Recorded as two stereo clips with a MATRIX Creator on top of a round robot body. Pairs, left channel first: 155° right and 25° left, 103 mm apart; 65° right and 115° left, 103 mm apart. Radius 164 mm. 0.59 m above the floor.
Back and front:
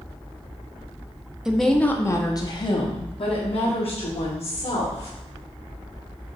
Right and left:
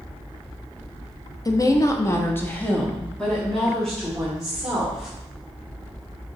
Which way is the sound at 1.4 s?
60° right.